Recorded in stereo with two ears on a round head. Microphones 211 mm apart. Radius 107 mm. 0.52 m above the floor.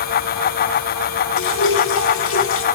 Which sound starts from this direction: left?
Dripping, at 1.4 s.